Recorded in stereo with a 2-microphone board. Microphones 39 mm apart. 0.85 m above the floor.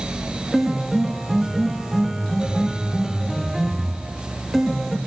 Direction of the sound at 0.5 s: Centre (ahead or behind).